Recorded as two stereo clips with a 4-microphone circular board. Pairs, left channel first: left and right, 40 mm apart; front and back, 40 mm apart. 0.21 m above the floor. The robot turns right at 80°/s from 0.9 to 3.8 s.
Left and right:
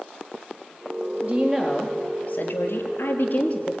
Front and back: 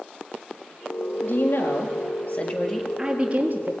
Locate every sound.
1.2 s a woman speaking: 45° right, 4 m; by 3.7 s 155° left, 4 m